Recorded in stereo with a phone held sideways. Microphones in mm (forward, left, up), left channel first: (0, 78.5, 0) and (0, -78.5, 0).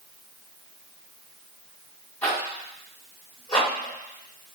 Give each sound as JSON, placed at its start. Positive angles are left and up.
{"t": 2.2, "sound": "a zipper", "side_deg": 20, "distance_m": 2.0}